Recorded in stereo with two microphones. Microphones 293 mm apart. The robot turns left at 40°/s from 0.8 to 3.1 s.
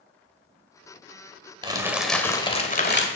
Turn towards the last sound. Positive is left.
turn(degrees=140)